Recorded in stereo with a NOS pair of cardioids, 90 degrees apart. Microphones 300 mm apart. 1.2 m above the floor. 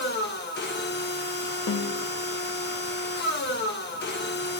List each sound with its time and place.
0.0 s a machine running: 35° left, 1.0 m
1.7 s a snare drum: 55° left, 1.1 m